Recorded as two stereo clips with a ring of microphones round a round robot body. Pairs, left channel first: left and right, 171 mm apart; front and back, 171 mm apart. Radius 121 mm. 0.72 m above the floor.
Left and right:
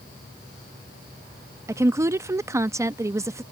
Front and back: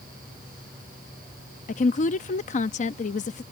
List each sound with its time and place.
1.7 s a woman speaking: 20° right